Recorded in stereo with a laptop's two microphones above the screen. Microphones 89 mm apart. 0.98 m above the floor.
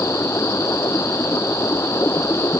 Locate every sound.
0.0 s running water: 30° left (ahead or behind)